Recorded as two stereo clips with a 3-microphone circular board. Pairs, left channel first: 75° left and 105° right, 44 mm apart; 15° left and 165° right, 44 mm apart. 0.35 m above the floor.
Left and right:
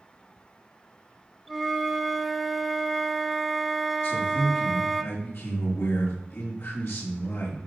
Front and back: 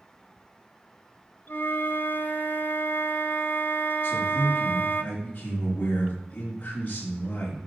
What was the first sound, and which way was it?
A flute, 15° right.